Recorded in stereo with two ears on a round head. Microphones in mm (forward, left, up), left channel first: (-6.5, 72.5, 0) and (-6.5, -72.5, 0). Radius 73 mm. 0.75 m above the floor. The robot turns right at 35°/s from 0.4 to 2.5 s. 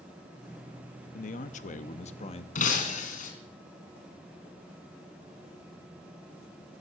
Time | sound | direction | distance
1.1 | a man speaking | 80° left | 0.8 m
2.5 | breaking glass | 50° left (ahead or behind) | 2.5 m